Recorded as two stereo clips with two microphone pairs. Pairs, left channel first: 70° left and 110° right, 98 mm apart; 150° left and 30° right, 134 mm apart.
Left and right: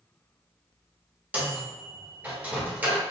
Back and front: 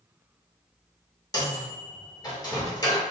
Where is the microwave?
170° right, 0.9 m.